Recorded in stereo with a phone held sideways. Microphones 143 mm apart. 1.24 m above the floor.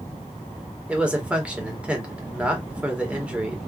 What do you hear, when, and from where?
0.9 s a man speaking: 10° right (ahead or behind), 1.5 m